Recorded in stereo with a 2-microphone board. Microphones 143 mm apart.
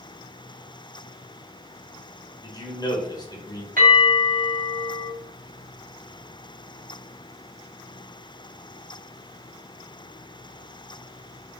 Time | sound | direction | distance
2.4 | a man speaking | 30° left (ahead or behind) | 1.0 m
3.8 | a bell | 75° right (ahead or behind) | 1.8 m